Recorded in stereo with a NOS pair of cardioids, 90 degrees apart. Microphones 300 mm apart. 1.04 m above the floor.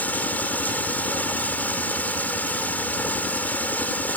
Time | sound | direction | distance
0.0 | running water | 5° left | ?